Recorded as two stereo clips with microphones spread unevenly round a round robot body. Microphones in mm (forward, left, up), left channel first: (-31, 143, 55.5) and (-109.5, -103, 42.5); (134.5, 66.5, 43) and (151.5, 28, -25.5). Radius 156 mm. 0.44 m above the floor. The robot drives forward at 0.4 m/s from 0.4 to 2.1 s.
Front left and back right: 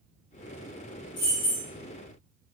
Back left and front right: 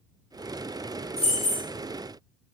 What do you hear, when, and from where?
1.2 s keys jangling: 80° left, 1.1 m; by 1.6 s 90° left, 1.1 m